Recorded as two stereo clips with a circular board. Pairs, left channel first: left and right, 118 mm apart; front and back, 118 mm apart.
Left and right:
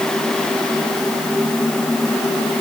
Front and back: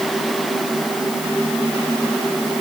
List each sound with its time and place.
Only background noise.